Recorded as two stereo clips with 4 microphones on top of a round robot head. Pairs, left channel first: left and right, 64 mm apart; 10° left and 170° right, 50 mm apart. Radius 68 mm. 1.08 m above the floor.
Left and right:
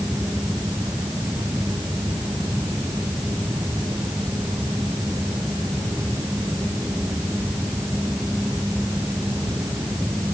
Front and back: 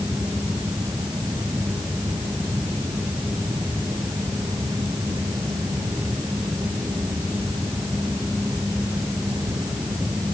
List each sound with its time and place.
Only background noise.